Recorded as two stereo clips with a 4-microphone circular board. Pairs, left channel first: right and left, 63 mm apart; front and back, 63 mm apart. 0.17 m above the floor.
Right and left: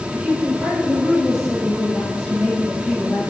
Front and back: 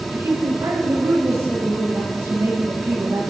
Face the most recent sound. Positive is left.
turn(degrees=-175)